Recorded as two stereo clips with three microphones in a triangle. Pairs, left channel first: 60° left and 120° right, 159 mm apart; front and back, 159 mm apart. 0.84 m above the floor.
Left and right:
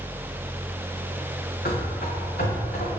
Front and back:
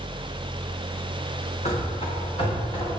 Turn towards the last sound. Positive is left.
turn(degrees=60)